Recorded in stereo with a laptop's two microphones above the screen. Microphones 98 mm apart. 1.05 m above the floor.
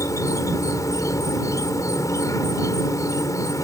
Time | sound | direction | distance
0.0 | an insect | 35° left (ahead or behind) | ?